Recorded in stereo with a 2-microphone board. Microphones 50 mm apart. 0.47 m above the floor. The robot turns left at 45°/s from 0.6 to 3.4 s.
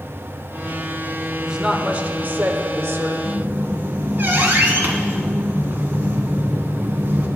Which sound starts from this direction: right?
A squeak, at 3.2 s.